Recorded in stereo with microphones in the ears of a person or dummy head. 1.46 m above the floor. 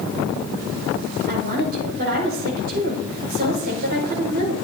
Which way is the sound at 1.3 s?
55° right (ahead or behind).